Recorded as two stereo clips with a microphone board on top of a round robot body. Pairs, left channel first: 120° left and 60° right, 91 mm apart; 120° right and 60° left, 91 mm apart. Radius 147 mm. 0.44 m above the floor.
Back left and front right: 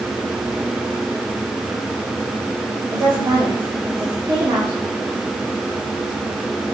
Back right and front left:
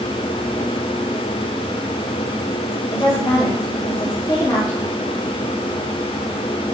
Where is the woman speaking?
105° right, 2.0 m.